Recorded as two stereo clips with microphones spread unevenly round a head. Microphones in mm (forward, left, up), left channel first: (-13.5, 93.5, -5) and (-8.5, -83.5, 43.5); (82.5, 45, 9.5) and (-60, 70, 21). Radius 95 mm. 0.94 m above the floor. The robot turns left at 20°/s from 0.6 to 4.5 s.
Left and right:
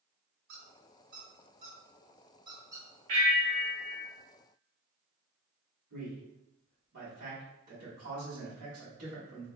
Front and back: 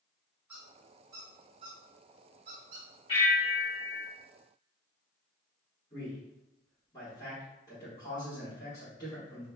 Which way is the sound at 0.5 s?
110° right.